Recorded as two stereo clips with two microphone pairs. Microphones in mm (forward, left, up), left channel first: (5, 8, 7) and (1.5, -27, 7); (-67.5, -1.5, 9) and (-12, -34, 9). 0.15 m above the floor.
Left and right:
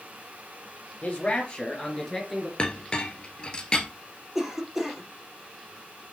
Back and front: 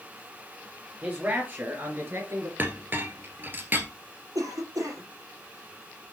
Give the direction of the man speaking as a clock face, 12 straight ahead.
11 o'clock.